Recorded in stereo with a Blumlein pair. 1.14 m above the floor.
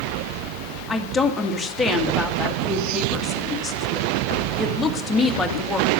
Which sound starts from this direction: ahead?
A woman speaking, at 0.9 s.